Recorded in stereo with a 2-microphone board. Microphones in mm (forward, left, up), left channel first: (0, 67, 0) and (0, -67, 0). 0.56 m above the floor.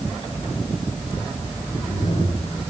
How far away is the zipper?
About 9.5 m.